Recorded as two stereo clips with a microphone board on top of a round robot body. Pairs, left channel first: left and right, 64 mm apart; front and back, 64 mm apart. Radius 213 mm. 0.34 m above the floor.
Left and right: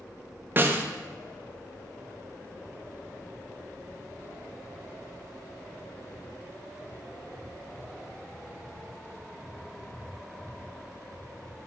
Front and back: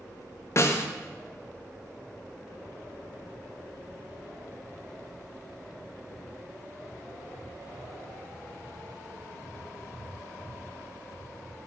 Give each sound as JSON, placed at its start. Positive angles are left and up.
{"t": 0.6, "sound": "a snare drum", "azimuth_deg": -35, "distance_m": 0.6}